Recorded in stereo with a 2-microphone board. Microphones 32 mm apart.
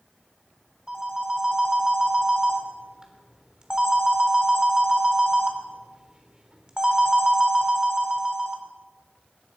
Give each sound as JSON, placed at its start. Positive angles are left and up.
{"t": 0.9, "sound": "a phone ringing", "side_deg": -25, "distance_m": 1.2}